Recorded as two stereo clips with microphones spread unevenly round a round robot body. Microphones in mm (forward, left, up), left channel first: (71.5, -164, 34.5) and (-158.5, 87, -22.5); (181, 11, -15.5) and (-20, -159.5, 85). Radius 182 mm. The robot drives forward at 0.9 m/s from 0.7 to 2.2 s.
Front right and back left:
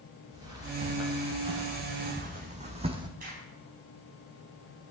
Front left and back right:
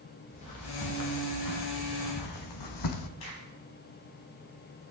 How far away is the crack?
About 4 m.